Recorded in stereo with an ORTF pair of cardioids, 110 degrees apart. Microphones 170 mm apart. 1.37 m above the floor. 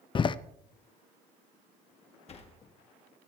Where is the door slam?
30° left, 0.6 m.